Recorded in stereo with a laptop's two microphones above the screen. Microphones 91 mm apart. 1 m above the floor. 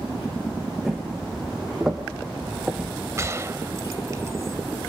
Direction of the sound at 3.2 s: 30° right (ahead or behind).